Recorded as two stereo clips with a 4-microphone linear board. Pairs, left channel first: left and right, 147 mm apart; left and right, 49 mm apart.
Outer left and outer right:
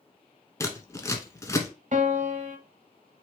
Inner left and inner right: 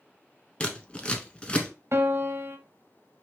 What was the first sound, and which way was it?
Scissors, 20° left (ahead or behind).